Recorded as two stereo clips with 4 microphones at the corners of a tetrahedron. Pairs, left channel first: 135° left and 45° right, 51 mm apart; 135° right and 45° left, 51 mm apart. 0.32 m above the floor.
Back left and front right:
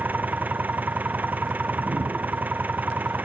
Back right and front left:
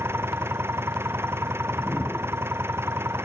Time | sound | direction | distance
0.0 | an engine running | 10° left | ?
1.6 | a whoosh | 75° right | ?